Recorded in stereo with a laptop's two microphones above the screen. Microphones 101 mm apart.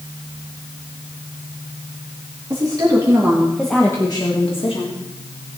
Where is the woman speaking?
45° right (ahead or behind), 2 m; by 5.0 s 70° left (ahead or behind), 2 m.